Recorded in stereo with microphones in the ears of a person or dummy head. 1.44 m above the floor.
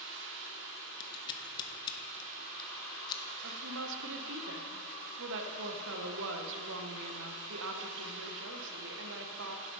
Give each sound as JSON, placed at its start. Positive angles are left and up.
{"t": 0.0, "sound": "running water", "side_deg": -65, "distance_m": 1.1}
{"t": 1.0, "sound": "scissors", "side_deg": 25, "distance_m": 1.3}
{"t": 3.4, "sound": "a woman speaking", "side_deg": -65, "distance_m": 1.1}